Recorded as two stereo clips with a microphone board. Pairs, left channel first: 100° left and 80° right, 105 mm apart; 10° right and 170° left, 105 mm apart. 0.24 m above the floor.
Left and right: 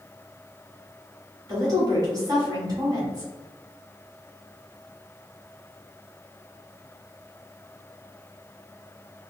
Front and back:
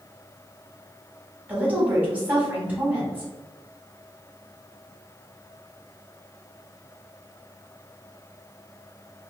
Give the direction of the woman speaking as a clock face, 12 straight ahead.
4 o'clock.